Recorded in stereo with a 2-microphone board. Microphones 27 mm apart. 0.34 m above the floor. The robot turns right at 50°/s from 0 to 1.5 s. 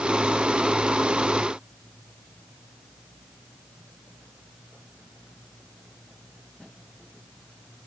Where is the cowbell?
No cowbell in this recording.